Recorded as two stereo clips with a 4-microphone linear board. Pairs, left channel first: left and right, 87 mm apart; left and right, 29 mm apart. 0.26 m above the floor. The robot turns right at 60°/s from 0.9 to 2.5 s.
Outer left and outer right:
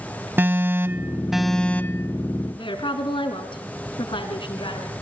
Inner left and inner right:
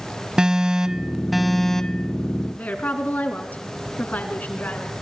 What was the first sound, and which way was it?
An alarm, 30° right.